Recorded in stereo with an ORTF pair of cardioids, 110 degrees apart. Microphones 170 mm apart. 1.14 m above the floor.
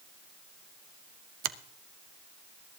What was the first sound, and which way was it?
A finger snap, 60° right.